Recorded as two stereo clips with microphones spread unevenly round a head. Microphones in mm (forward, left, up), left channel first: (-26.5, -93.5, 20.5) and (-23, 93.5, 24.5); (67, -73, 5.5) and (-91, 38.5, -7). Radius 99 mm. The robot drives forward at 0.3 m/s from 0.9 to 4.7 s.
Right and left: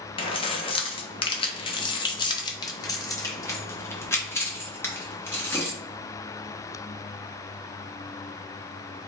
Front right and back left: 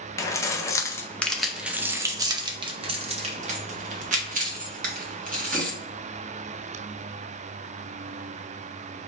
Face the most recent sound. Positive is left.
turn(degrees=-170)